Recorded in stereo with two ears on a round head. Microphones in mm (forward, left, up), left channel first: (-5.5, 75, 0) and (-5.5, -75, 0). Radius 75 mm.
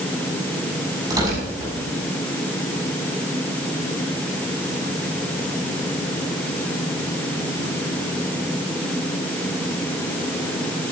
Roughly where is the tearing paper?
Right.